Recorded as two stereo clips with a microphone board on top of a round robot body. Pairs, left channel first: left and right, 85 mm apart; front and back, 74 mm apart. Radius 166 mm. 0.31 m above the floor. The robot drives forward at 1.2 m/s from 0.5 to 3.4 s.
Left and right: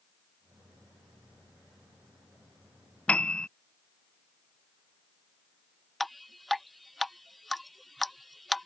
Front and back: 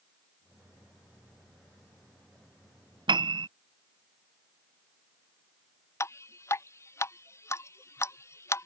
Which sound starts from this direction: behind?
A piano, at 3.1 s.